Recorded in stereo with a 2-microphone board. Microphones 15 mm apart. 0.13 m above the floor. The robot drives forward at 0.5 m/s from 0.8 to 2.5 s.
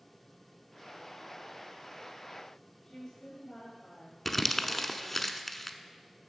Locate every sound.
2.8 s a woman speaking: 30° left (ahead or behind), 5 m
4.2 s crumpling: 10° left (ahead or behind), 0.7 m